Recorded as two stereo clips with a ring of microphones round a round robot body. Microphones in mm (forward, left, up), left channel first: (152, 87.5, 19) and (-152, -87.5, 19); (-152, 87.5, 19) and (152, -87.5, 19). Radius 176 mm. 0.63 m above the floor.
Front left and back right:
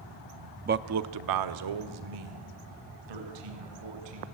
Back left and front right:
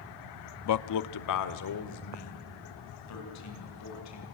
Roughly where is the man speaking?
Behind left.